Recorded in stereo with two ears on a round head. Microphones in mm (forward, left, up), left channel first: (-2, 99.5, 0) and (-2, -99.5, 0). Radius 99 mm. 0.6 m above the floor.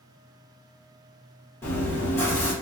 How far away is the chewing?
About 1.2 m.